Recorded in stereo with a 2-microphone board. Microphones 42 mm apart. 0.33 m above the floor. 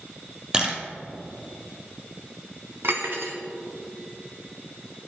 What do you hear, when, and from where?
0.5 s a camera shutter: 20° right (ahead or behind), 1.8 m
2.8 s cutlery clinking: 70° right (ahead or behind), 1.6 m